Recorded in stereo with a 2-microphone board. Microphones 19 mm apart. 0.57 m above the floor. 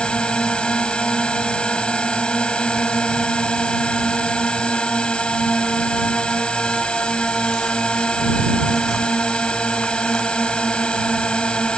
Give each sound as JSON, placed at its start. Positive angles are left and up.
{"t": 0.0, "sound": "a drone", "side_deg": 65}